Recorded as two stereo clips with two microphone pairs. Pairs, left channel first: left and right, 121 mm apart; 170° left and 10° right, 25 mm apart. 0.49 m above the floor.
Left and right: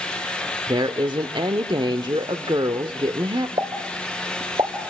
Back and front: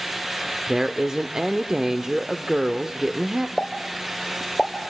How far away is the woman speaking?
About 1.0 m.